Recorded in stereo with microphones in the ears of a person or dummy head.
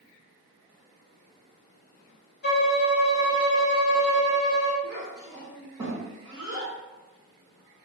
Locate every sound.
2.4 s a violin: 55° left (ahead or behind), 0.8 m
4.8 s a child speaking: 15° right (ahead or behind), 1.1 m